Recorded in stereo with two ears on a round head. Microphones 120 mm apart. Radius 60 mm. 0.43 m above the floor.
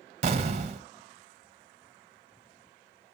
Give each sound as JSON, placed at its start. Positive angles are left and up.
{"t": 0.2, "sound": "an explosion", "side_deg": -45, "distance_m": 0.9}